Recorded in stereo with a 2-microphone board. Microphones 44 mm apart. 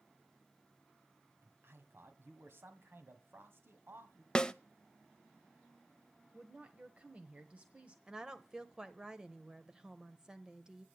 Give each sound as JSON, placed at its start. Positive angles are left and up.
{"t": 1.4, "sound": "a man speaking", "side_deg": -60, "distance_m": 1.8}
{"t": 4.3, "sound": "a snare drum", "side_deg": 20, "distance_m": 0.6}
{"t": 6.3, "sound": "a woman speaking", "side_deg": -30, "distance_m": 1.3}
{"t": 8.1, "sound": "a woman speaking", "side_deg": -15, "distance_m": 0.9}